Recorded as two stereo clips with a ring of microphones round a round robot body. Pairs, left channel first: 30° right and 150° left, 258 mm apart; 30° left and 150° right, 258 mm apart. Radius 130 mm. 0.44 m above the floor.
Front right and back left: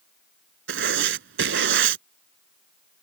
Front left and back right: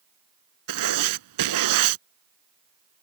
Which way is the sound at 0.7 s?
165° right.